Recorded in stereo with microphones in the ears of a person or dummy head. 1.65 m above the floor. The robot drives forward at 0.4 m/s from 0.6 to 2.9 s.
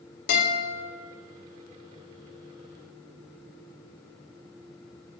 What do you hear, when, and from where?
0.3 s a guitar: 55° left (ahead or behind), 2 m